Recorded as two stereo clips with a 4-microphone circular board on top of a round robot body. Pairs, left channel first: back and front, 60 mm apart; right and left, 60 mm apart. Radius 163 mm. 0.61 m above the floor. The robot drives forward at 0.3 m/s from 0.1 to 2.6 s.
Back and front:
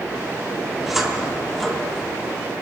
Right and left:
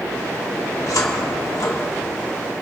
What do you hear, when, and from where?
0.9 s a cupboard door: 85° right, 2 m; by 2.5 s 100° right, 2 m